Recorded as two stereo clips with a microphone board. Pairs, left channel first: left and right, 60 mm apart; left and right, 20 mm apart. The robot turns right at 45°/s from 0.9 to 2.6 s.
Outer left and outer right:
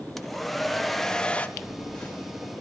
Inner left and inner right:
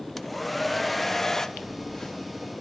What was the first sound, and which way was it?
A hair dryer, 5° left (ahead or behind).